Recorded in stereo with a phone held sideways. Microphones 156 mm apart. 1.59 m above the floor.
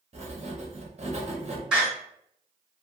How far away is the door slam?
About 1.0 m.